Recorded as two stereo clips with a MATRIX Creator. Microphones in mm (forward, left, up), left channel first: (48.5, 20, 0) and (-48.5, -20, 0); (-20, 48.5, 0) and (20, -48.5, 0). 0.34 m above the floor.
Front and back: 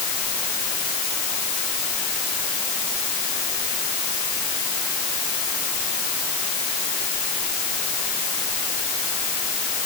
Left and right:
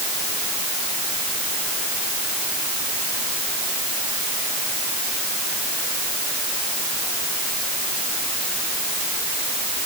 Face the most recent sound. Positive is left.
No sound to turn to.